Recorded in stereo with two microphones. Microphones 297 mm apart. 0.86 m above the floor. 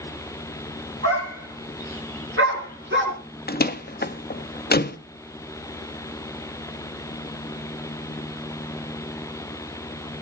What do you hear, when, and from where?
1.0 s a dog barking: 50° right (ahead or behind), 4.5 m; by 3.2 s 35° right (ahead or behind), 4.5 m
3.5 s a door slam: 30° left (ahead or behind), 0.8 m